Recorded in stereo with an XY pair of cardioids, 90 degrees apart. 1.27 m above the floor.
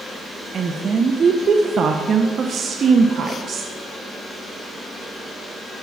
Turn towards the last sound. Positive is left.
turn(degrees=-50)